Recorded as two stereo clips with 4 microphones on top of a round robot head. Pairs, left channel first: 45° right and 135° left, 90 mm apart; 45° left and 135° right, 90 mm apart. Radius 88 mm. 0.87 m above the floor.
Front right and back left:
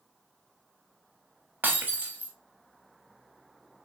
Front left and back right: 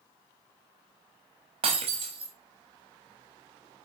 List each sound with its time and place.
1.6 s breaking glass: 155° right, 0.9 m